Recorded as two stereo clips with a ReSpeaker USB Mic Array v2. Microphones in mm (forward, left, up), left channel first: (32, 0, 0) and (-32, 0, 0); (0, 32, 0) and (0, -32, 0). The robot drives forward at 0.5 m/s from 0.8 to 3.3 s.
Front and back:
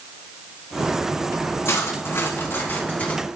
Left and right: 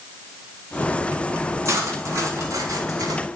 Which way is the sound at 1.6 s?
45° right.